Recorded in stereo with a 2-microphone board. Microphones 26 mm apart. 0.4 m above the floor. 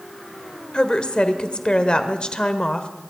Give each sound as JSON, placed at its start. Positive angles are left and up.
{"t": 0.7, "sound": "a woman speaking", "side_deg": 35, "distance_m": 1.2}